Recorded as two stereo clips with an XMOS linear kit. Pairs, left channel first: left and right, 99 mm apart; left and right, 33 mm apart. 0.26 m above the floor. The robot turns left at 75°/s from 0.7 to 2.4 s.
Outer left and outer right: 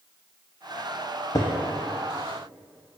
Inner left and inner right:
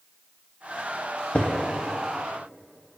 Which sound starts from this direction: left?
Footsteps, at 1.4 s.